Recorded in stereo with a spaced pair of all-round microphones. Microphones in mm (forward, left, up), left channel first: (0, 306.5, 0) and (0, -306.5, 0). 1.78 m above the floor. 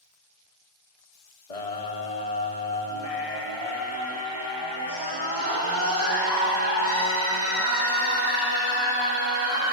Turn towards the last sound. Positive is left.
turn(degrees=25)  # may be behind; listen again after turning